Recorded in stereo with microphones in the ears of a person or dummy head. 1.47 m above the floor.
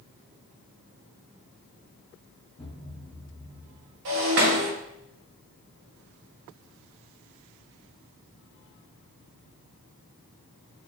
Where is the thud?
10° left (ahead or behind), 2.0 m.